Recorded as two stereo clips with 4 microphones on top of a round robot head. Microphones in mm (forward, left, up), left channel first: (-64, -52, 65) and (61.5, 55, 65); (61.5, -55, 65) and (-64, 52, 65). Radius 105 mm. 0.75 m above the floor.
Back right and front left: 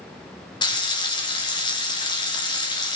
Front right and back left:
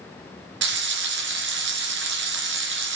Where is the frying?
155° left, 2 m.